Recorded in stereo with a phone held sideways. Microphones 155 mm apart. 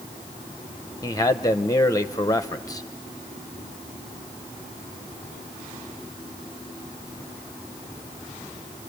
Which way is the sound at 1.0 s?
20° left (ahead or behind).